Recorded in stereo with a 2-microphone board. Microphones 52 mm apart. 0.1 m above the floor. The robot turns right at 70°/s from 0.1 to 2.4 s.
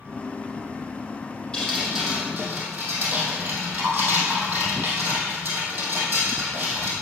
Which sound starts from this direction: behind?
Dripping, at 1.5 s.